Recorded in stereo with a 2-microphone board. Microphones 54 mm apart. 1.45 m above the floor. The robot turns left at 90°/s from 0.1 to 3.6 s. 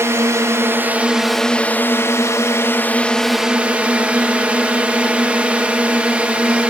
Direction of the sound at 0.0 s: 70° right.